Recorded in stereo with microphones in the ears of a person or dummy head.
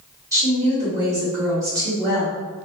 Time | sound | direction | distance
0.3 | a woman speaking | 15° right (ahead or behind) | 1.7 m